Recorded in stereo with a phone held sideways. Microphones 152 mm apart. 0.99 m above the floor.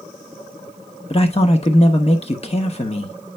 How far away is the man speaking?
About 1.1 m.